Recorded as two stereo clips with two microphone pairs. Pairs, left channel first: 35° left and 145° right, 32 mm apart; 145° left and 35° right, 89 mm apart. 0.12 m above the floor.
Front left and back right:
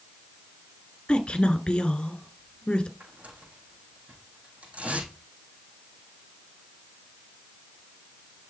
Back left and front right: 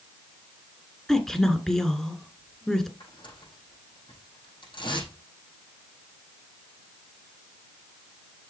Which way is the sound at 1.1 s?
60° left.